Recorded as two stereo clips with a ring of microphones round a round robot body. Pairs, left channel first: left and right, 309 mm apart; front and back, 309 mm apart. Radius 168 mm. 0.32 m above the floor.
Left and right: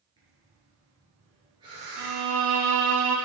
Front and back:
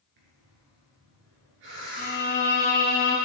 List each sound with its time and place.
0.2 s breathing: 170° right, 2.5 m
2.0 s a violin: 65° right, 1.8 m